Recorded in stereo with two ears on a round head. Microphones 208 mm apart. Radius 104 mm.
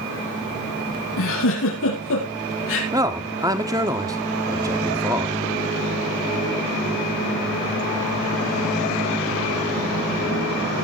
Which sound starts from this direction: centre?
A man speaking, at 2.9 s.